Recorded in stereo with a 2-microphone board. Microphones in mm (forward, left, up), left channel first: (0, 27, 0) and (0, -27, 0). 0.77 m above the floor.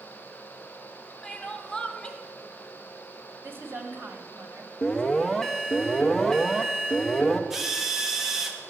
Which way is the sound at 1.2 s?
20° left (ahead or behind).